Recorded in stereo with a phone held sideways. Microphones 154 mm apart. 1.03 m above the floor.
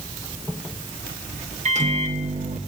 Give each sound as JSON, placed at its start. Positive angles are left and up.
{"t": 1.6, "sound": "a microwave", "side_deg": -50, "distance_m": 1.0}